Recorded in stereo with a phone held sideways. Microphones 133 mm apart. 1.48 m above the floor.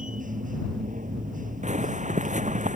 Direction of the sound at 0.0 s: 85° right.